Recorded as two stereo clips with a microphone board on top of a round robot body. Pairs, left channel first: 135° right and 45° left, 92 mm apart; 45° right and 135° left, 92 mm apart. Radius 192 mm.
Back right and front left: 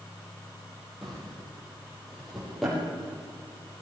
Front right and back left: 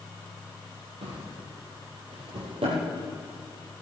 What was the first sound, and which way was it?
A drawer, 135° left.